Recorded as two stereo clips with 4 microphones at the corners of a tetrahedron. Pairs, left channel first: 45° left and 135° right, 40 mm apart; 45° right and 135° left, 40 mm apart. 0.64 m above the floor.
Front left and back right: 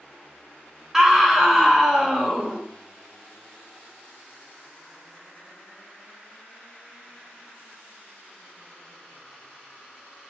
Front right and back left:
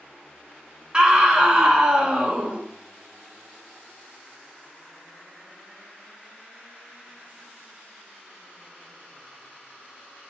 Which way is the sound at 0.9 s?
165° left.